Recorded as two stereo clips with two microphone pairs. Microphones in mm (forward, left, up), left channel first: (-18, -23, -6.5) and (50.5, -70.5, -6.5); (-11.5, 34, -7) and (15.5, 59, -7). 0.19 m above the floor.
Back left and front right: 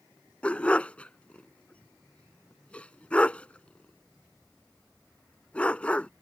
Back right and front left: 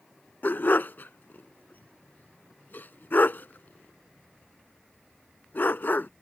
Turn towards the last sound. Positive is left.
turn(degrees=-140)